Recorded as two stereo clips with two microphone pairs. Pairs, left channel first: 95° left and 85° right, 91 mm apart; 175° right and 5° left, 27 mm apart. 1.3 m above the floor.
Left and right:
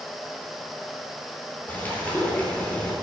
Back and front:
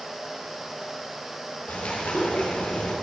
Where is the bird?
165° left, 3.5 m.